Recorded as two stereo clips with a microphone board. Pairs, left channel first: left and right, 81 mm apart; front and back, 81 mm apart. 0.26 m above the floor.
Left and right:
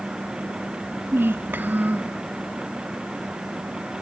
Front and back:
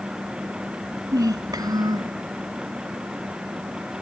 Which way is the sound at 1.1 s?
150° right.